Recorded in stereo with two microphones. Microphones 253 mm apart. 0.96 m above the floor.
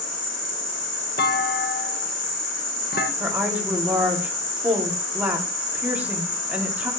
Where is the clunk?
40° left (ahead or behind), 1.0 m.